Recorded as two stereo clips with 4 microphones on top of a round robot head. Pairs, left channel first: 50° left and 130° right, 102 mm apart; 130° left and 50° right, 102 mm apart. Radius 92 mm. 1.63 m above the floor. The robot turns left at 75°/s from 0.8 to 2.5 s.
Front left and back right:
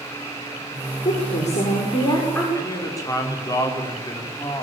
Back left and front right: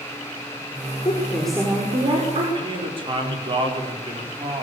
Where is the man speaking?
10° right, 5.5 m.